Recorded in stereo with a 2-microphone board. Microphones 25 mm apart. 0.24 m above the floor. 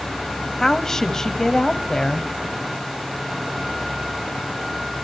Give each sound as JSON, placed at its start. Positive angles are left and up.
{"t": 0.6, "sound": "a woman speaking", "side_deg": 20, "distance_m": 1.3}